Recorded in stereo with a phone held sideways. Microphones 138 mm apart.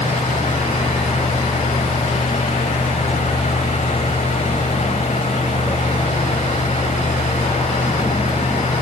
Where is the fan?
60° left (ahead or behind), 1.5 m.